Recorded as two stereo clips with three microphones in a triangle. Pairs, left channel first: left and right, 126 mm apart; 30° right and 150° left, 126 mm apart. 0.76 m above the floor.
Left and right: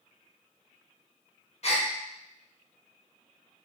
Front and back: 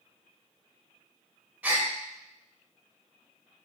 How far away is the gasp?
About 0.6 m.